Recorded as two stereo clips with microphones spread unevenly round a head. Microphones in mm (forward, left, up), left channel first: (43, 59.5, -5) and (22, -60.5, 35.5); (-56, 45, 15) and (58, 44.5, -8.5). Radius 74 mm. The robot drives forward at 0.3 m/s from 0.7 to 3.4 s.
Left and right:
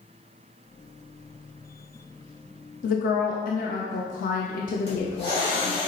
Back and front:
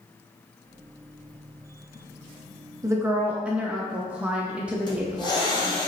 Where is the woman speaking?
65° left, 0.6 m; by 5.9 s 80° left, 0.5 m.